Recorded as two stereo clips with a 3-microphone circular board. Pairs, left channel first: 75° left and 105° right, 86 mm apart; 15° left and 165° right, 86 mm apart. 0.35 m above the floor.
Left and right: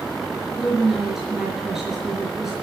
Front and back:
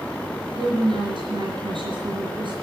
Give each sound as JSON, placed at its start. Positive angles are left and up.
{"t": 0.6, "sound": "a woman speaking", "azimuth_deg": 170, "distance_m": 4.5}